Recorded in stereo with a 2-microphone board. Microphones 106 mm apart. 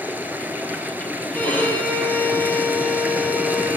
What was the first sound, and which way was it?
Running water, 15° right (ahead or behind).